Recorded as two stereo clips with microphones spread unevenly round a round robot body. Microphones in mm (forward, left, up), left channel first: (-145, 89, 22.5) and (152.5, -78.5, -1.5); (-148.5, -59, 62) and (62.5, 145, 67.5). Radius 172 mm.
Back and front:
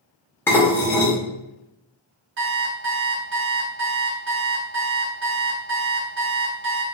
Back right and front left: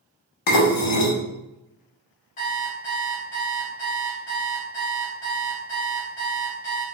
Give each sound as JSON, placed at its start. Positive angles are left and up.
{"t": 0.5, "sound": "dishes clattering", "azimuth_deg": -125, "distance_m": 0.8}
{"t": 2.4, "sound": "an alarm clock", "azimuth_deg": -75, "distance_m": 0.7}